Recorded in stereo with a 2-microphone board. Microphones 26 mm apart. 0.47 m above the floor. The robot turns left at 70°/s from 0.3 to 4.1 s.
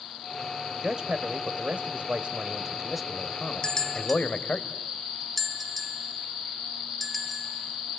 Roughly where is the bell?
Left.